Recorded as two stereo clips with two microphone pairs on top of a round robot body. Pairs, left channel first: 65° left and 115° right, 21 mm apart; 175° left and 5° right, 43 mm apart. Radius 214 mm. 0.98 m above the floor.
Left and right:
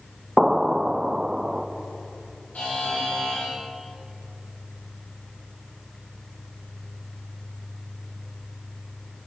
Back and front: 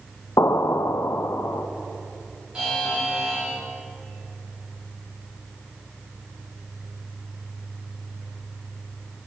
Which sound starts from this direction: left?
A buzzer, at 2.5 s.